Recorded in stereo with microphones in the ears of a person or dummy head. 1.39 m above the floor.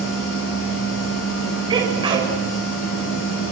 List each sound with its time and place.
0.0 s a machine running: 70° left (ahead or behind), 8 m
1.7 s a sneeze: 25° right (ahead or behind), 6.5 m